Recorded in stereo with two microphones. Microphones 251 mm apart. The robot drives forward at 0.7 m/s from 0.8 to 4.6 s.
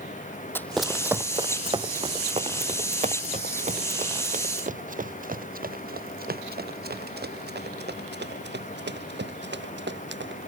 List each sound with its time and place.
0.6 s running footsteps: 10° left (ahead or behind); by 10.4 s 45° right (ahead or behind)